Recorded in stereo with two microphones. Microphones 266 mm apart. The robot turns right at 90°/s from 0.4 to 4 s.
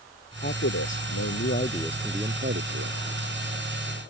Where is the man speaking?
35° left; by 3.0 s 95° right.